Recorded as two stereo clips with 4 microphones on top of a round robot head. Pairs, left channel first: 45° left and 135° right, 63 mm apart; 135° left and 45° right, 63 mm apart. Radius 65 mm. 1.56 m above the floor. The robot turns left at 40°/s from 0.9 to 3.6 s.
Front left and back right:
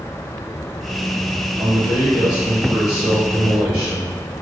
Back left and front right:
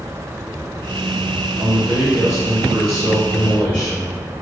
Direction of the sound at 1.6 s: 70° right.